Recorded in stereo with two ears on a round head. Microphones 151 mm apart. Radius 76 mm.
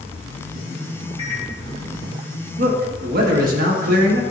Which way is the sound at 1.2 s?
30° left (ahead or behind).